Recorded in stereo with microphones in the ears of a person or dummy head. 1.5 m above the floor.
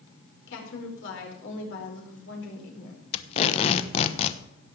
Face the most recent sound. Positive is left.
turn(degrees=45)  # may be behind; listen again after turning